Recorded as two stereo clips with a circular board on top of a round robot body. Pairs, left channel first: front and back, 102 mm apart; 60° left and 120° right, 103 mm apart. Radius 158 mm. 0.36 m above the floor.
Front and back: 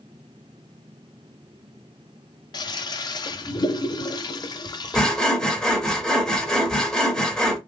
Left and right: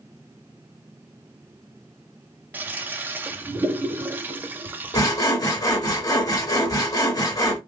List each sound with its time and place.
2.5 s a toilet flushing: 50° right, 0.5 m
4.9 s sawing: 80° left, 1.4 m